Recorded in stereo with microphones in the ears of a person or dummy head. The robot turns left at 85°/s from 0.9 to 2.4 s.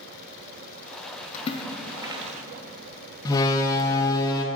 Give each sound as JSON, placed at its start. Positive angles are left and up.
{"t": 1.3, "sound": "a splash", "side_deg": 40, "distance_m": 0.9}
{"t": 3.2, "sound": "a door slam", "side_deg": 20, "distance_m": 0.9}